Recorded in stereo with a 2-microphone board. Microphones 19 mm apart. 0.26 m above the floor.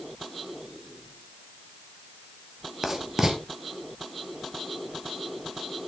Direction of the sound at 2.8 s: 25° right (ahead or behind).